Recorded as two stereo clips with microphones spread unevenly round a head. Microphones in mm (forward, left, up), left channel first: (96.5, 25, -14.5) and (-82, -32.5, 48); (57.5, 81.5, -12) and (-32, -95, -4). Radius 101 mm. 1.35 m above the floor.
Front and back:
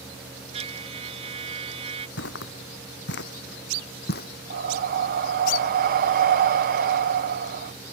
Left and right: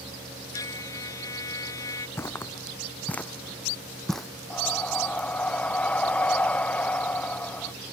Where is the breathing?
145° left.